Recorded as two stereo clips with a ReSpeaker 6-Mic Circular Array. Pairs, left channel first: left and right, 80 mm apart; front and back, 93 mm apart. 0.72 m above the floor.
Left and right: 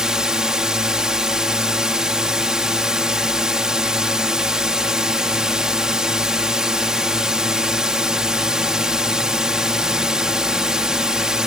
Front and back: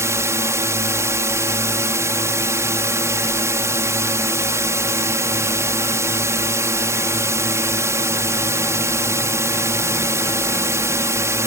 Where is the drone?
165° right.